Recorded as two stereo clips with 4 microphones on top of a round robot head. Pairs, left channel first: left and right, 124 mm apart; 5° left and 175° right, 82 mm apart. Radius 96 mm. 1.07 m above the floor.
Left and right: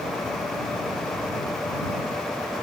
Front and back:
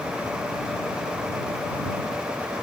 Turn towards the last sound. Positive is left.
No sound to turn to.